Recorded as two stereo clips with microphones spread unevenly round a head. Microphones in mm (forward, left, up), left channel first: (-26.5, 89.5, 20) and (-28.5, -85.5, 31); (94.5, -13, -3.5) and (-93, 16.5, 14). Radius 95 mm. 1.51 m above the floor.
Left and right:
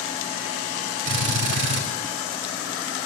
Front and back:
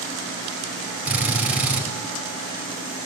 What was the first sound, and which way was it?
A drill, 105° right.